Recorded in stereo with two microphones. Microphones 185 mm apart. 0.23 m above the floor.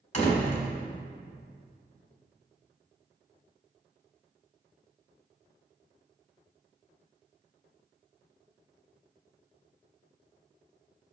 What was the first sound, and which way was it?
A door slam, 40° left (ahead or behind).